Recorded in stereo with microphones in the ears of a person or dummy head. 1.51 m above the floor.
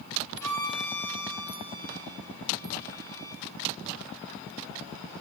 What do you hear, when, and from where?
0.4 s a violin: 15° left (ahead or behind), 6 m